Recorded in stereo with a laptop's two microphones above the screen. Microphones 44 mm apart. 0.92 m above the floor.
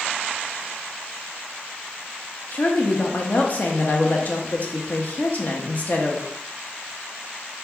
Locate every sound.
2.5 s a woman speaking: 35° left (ahead or behind), 0.7 m